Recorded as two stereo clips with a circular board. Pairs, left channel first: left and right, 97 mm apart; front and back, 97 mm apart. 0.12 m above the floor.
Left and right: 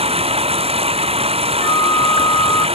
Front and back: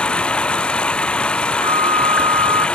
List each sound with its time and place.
0.0 s running water: 80° right
1.6 s a flute: 145° left